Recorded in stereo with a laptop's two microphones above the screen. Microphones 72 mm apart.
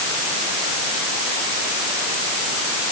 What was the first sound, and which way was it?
Only background noise.